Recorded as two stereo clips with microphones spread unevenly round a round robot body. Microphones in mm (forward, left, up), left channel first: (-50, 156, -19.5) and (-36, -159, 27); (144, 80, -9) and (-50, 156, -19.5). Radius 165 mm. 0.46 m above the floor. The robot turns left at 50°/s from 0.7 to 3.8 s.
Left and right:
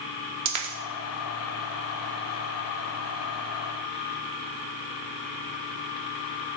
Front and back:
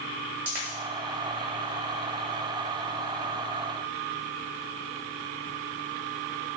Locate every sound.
0.5 s a dropped coin: 120° right, 0.7 m